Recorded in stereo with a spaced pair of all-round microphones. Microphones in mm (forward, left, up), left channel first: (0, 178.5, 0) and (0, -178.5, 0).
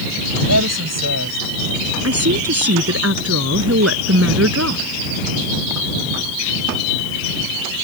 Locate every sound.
0.5 s a woman speaking: 45° right (ahead or behind)
2.0 s a woman speaking: 40° right (ahead or behind)